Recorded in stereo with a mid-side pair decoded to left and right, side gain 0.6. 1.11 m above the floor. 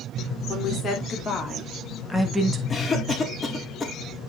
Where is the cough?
25° left, 2 m.